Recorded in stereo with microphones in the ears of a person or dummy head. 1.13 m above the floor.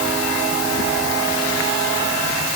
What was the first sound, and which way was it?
Only background noise.